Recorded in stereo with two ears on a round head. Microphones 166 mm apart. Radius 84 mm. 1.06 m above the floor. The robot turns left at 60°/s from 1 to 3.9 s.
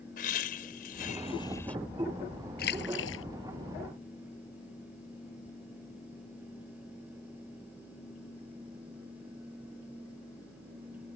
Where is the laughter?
50° left; by 1.8 s 5° left.